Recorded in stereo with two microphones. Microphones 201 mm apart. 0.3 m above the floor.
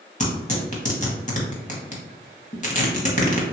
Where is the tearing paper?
35° left (ahead or behind), 0.8 m.